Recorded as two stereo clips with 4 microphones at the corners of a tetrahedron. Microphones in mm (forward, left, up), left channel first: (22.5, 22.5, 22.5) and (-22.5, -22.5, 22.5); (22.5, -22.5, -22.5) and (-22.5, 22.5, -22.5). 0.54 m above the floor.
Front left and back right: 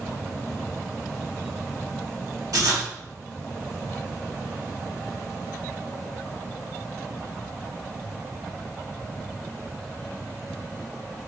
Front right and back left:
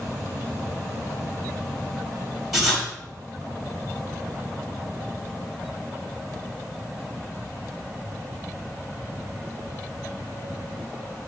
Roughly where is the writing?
Behind right.